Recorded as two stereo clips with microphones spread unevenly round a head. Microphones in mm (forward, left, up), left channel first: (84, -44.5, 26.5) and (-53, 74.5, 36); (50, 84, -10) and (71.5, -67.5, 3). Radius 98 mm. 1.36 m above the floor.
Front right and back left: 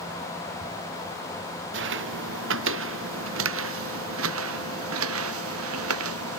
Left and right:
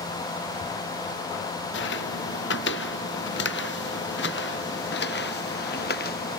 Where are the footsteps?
120° left; by 6.4 s 145° left.